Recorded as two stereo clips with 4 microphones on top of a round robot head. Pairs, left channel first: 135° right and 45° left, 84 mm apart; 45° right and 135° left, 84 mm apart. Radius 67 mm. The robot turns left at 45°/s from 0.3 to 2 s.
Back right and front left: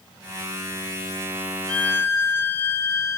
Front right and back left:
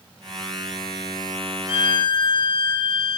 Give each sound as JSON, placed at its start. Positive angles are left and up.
{"t": 1.7, "sound": "a violin", "azimuth_deg": -55, "distance_m": 1.5}